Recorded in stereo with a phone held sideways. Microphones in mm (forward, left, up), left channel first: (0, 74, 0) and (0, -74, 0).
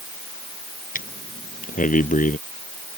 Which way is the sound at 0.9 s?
65° left (ahead or behind).